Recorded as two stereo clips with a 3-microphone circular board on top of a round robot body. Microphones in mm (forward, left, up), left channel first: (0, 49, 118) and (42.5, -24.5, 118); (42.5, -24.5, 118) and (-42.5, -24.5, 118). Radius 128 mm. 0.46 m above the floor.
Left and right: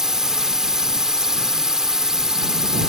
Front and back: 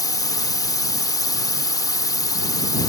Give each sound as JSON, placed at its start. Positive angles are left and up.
{"t": 0.0, "sound": "a drone", "azimuth_deg": 20}